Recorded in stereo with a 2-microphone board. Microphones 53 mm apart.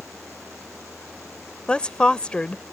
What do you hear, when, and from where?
1.7 s a woman speaking: 20° left (ahead or behind)